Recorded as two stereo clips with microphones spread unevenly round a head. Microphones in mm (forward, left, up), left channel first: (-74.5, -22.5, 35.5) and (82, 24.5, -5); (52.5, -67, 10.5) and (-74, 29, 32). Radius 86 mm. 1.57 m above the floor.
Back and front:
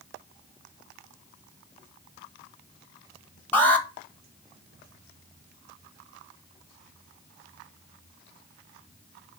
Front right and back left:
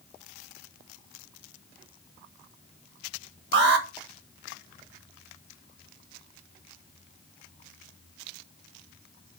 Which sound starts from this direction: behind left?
An alarm, at 3.5 s.